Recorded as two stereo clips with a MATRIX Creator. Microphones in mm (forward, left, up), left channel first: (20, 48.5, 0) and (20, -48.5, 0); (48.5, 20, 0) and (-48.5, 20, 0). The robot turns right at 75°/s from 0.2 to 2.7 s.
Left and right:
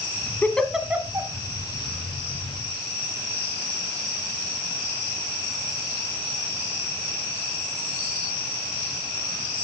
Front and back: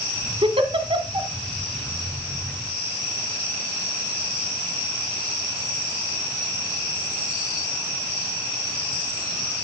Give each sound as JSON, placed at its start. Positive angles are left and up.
{"t": 0.4, "sound": "a giggle", "azimuth_deg": 160, "distance_m": 1.2}